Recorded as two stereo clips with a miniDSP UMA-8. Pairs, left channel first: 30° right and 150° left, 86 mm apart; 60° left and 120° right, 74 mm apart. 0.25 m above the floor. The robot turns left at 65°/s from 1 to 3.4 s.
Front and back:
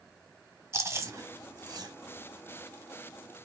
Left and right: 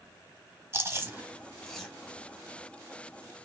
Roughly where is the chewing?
Behind.